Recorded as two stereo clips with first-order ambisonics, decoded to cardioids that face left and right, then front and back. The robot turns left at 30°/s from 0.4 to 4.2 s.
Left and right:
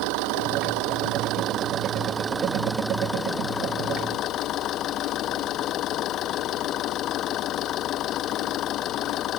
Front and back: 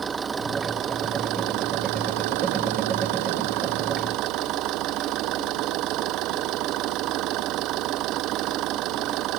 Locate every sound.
0.0 s an engine running: 105° right; by 9.4 s 140° left